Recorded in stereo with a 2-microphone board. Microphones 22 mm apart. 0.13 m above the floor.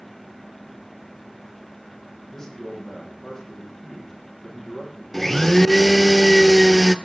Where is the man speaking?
20° left (ahead or behind), 7 m.